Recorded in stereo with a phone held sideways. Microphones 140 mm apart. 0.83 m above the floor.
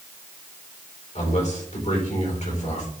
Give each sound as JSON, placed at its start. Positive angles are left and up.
{"t": 1.1, "sound": "a man speaking", "side_deg": 55, "distance_m": 3.5}